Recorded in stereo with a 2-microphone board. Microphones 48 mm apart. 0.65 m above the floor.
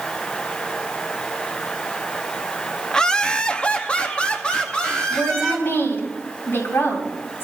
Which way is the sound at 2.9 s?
15° left (ahead or behind).